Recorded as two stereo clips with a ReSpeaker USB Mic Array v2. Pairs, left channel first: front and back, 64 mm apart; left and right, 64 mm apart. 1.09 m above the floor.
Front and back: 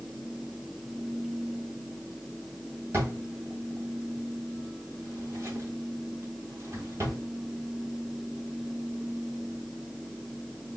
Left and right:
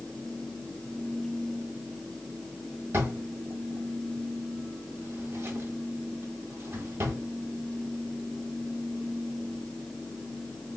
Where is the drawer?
130° right, 1.8 m.